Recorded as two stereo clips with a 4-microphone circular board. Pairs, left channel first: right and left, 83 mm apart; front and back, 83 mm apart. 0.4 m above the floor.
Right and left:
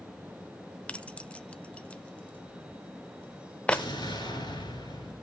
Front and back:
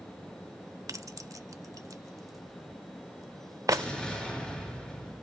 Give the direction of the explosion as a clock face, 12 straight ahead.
3 o'clock.